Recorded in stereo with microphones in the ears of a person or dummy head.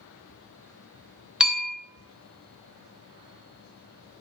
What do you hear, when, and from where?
1.4 s a bell: centre (ahead or behind), 0.5 m